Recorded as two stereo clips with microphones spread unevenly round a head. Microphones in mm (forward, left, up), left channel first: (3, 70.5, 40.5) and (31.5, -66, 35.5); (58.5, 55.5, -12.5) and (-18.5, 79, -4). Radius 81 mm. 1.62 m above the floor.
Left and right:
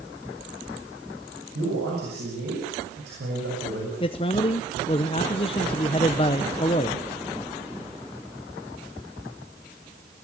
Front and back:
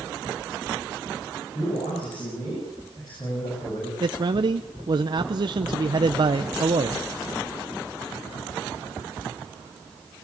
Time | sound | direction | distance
1.6 | a man speaking | 80° right | 7.5 m
4.0 | a man speaking | 155° left | 0.8 m